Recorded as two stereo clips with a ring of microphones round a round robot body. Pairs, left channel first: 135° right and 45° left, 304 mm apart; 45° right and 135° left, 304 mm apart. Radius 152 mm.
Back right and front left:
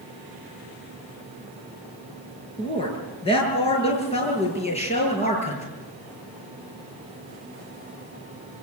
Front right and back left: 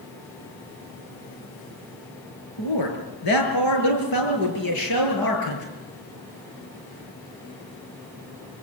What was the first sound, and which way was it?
A man speaking, 60° right.